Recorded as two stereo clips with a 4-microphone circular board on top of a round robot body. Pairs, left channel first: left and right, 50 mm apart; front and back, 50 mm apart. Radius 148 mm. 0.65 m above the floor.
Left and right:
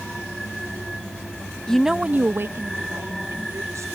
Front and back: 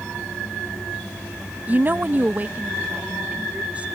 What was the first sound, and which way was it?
A woman speaking, 155° left.